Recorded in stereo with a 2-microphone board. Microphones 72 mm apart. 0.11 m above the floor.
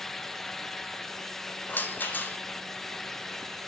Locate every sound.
1.7 s a rattle: 25° left (ahead or behind), 1.0 m